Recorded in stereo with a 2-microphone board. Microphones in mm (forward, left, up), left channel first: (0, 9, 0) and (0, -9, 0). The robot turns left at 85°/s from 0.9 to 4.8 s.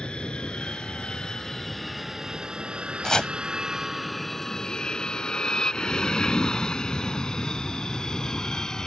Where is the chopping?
35° left (ahead or behind); by 3.3 s 50° left (ahead or behind).